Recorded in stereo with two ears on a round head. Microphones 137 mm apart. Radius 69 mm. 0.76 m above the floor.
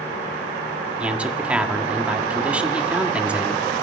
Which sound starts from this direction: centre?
A man speaking, at 1.0 s.